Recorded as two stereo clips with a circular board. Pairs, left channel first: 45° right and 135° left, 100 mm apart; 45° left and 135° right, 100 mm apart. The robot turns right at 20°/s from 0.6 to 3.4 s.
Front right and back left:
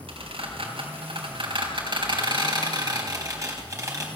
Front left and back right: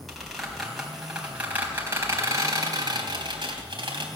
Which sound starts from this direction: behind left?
A squeak, at 0.1 s.